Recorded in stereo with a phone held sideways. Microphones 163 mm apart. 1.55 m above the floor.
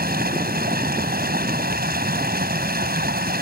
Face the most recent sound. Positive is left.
turn(degrees=-75)  # may be behind; listen again after turning